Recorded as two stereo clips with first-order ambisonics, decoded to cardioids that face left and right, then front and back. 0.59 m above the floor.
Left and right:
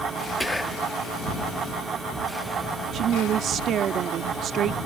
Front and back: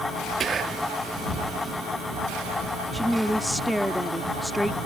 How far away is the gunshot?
No gunshot in this recording.